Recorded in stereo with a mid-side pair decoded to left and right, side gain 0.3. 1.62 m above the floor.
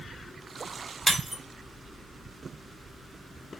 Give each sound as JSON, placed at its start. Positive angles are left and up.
{"t": 1.1, "sound": "breaking glass", "azimuth_deg": -15, "distance_m": 2.5}